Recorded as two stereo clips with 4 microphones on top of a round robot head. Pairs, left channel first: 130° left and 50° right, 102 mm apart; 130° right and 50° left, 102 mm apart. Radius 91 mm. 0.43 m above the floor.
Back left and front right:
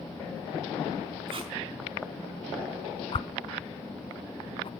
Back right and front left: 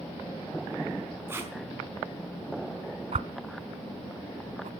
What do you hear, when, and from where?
1.3 s tape being pulled: 15° right, 4 m
3.1 s a whoosh: 85° left, 0.7 m